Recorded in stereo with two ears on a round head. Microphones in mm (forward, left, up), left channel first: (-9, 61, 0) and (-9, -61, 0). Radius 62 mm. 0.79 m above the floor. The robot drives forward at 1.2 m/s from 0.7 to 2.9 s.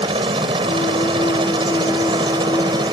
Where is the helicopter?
40° right (ahead or behind); by 3.0 s 35° right (ahead or behind).